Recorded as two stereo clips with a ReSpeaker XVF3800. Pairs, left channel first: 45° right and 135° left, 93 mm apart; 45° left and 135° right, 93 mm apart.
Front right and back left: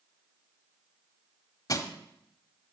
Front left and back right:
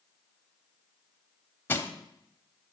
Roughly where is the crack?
I don't hear a crack.